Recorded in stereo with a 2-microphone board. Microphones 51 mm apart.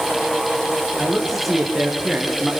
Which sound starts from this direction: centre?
A man speaking, at 1.0 s.